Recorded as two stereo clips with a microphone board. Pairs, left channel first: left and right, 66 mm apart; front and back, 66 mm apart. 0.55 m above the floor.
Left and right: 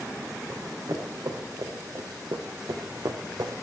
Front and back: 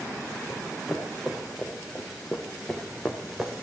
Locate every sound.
0.5 s running footsteps: 95° right, 4.5 m